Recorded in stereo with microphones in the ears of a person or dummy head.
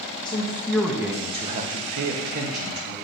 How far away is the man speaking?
About 0.8 m.